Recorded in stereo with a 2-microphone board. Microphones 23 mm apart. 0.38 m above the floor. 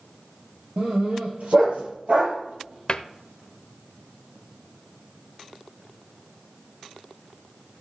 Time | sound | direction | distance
0.8 | a dog barking | 75° right (ahead or behind) | 3 m
2.9 | a cupboard door | 40° left (ahead or behind) | 0.7 m